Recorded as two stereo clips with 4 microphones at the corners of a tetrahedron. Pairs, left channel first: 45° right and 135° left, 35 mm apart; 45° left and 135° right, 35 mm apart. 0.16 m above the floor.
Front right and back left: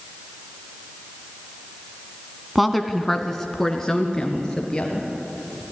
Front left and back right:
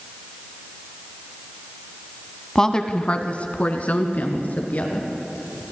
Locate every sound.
2.5 s a woman speaking: 60° left, 1.3 m; by 5.6 s 25° left, 3.5 m